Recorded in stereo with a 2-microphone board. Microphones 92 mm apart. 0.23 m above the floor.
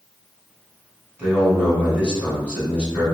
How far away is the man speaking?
About 2.0 m.